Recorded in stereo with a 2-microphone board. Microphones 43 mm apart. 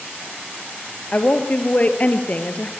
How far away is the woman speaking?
About 1.8 m.